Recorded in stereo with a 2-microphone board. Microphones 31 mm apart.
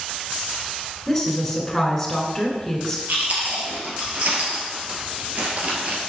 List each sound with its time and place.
1.1 s a woman speaking: 10° left (ahead or behind), 1.9 m
3.1 s chewing: 55° right (ahead or behind), 1.6 m